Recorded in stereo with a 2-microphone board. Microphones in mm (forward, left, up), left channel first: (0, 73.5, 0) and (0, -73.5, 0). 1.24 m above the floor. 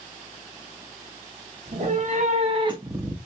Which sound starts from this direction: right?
A cat meowing, at 1.7 s.